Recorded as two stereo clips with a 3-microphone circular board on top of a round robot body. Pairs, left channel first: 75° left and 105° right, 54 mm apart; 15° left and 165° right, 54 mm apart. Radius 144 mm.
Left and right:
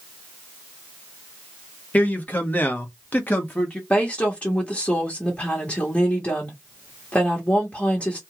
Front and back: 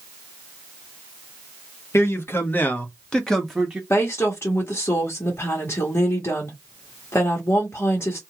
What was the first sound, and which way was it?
A man speaking, 20° left.